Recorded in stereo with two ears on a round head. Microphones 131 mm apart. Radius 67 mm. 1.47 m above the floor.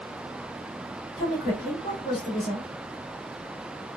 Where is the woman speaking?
70° left (ahead or behind), 1.8 m.